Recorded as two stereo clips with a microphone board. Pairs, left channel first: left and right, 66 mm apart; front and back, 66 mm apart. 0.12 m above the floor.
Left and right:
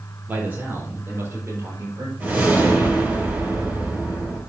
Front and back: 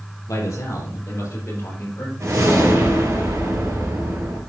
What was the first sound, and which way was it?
A man speaking, 30° right.